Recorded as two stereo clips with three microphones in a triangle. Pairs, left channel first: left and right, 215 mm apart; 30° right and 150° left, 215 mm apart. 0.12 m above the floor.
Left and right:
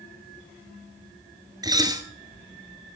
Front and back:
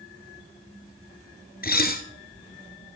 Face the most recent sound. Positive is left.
turn(degrees=-25)